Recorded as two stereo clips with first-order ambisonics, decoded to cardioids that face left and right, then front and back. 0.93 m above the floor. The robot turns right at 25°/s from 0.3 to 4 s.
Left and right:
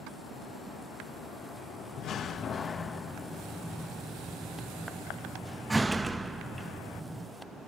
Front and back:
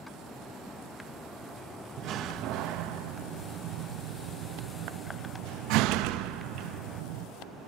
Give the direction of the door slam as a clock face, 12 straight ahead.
7 o'clock.